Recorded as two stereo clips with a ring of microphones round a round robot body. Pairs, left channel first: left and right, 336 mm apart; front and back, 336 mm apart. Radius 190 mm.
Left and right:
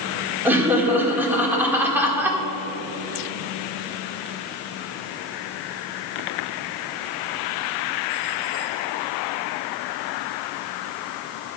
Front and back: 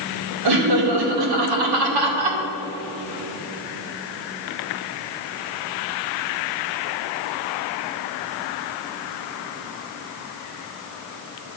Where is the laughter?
175° right, 2 m.